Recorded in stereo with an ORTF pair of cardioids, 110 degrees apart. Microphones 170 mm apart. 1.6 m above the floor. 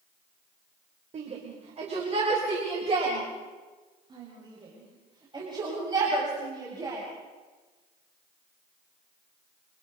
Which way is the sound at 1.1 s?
45° right.